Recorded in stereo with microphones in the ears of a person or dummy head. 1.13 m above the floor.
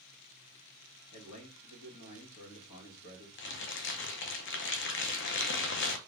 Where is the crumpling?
55° left (ahead or behind), 0.7 m.